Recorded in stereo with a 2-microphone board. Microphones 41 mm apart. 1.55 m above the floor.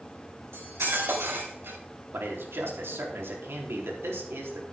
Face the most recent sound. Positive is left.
turn(degrees=-80)